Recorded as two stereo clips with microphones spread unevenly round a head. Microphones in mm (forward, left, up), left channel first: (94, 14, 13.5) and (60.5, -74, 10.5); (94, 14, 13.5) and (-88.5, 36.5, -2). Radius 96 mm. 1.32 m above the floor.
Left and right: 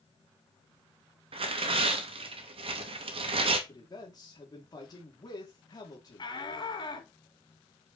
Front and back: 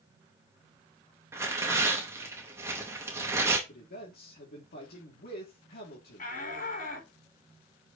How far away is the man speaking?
About 3 m.